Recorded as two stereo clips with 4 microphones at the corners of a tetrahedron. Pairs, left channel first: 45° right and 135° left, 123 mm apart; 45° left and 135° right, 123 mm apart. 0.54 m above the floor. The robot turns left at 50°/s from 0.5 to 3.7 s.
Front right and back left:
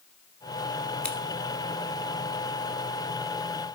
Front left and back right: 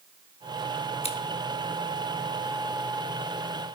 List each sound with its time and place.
1.0 s scissors: 35° left, 1.2 m; by 1.2 s 30° left, 1.2 m